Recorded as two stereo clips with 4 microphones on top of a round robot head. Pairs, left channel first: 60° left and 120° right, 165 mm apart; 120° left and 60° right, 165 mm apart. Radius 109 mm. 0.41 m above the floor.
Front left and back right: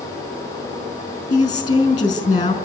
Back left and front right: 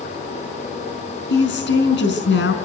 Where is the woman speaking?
125° left, 5 m.